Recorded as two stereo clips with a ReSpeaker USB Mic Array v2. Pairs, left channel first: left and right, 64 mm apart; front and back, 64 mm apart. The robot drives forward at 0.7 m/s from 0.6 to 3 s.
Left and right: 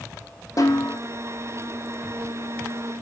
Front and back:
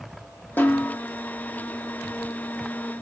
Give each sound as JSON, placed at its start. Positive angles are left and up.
{"t": 0.6, "sound": "a snare drum", "azimuth_deg": 60, "distance_m": 1.7}